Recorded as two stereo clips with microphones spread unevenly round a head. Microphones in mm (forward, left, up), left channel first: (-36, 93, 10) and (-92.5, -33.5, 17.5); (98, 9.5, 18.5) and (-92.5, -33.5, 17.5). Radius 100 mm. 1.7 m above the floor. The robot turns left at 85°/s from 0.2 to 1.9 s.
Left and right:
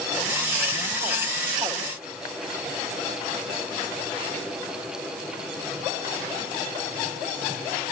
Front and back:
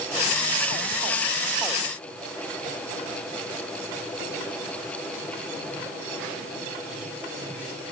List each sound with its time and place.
Only background noise.